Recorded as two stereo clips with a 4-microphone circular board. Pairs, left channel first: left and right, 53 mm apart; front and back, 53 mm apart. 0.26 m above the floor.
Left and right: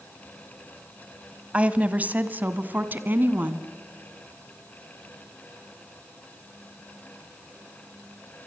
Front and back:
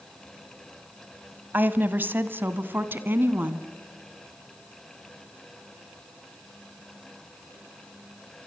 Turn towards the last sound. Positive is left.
turn(degrees=-135)